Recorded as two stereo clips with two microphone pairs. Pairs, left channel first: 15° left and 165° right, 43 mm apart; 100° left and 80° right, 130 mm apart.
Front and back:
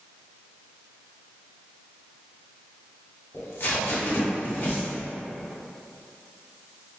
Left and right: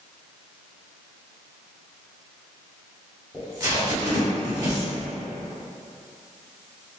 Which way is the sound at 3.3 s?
15° right.